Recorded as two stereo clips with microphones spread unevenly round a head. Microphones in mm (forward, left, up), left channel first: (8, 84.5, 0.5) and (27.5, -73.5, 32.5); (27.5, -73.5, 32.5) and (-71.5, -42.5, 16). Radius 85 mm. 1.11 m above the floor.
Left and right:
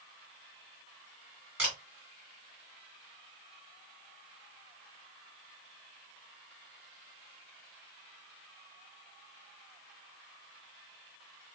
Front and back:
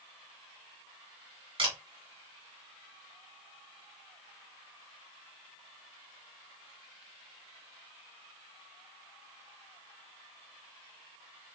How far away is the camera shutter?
About 1.6 m.